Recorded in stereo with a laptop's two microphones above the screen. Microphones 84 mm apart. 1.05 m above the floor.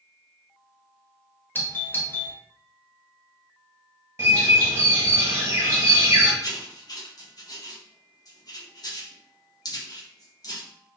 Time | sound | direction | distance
1.6 | a doorbell | 25° left (ahead or behind) | 0.6 m
4.2 | a bird | 30° right (ahead or behind) | 1.4 m
6.4 | writing | 50° left (ahead or behind) | 0.7 m